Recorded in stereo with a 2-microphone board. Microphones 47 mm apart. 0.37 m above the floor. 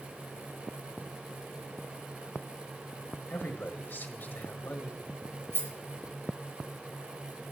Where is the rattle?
55° right (ahead or behind), 4.5 m.